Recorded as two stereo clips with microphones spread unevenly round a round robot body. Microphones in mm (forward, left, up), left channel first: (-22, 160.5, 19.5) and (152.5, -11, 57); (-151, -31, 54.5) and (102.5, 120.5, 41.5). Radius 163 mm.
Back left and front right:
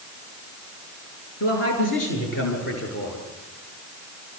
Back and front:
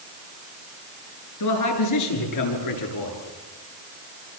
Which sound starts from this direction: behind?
A man speaking, at 1.4 s.